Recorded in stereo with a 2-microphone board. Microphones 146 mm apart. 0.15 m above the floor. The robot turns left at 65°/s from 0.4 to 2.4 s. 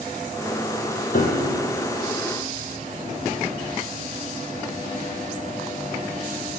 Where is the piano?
105° left, 2.5 m; by 1.6 s 70° left, 2.5 m.